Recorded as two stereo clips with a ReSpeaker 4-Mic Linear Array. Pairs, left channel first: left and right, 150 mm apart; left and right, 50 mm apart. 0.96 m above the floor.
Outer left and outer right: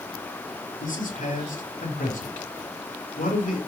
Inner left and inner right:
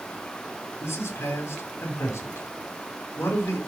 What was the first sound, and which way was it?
A man speaking, 70° left (ahead or behind).